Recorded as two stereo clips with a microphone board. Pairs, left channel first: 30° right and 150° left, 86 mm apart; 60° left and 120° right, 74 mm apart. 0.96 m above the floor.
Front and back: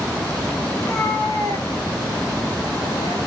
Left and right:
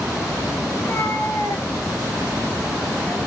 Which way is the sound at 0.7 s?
20° left.